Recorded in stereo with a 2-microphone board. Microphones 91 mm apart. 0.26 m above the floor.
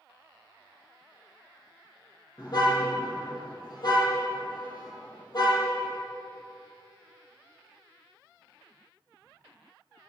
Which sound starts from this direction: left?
A car horn, at 2.4 s.